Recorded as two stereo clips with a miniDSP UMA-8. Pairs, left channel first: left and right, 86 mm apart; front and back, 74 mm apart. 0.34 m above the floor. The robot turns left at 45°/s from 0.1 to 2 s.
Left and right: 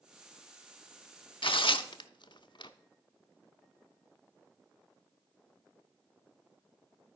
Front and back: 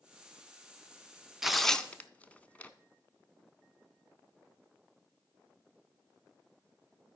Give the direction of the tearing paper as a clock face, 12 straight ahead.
9 o'clock.